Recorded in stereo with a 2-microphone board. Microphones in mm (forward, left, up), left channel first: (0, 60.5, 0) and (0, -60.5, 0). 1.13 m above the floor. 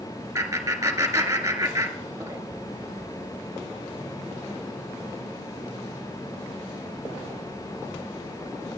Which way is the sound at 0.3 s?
25° right (ahead or behind).